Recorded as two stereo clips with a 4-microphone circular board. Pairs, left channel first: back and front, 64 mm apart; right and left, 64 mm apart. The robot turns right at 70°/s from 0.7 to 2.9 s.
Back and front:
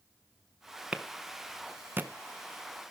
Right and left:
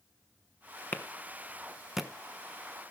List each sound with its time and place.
0.9 s a clap: 65° right, 1.0 m; by 2.1 s 15° left, 1.0 m